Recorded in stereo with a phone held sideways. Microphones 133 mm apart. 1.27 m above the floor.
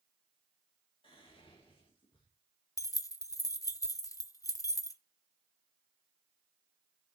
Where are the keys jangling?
25° left (ahead or behind), 0.6 m.